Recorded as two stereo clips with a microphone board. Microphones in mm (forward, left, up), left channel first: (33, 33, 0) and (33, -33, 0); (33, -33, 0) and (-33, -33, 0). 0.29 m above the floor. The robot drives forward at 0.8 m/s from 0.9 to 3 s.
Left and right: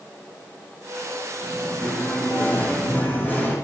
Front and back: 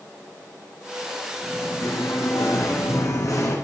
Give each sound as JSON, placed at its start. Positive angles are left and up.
{"t": 1.4, "sound": "singing", "azimuth_deg": 25, "distance_m": 7.5}